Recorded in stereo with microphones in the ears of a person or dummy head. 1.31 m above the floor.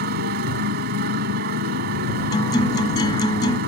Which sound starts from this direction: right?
A motorcycle, at 0.0 s.